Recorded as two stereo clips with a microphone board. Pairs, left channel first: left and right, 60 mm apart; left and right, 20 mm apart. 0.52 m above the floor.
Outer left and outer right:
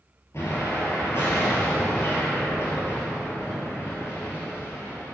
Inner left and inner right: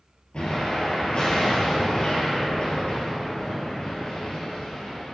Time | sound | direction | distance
0.3 | an explosion | 50° left (ahead or behind) | 2.5 m